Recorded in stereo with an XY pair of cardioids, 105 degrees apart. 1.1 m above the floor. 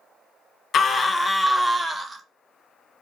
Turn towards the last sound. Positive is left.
turn(degrees=-30)